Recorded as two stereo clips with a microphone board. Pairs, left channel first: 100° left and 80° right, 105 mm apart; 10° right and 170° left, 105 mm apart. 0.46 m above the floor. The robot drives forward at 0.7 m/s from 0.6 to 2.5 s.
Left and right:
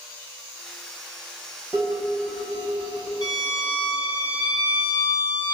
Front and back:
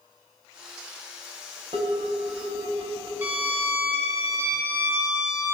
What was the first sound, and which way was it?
Dishes clattering, 160° right.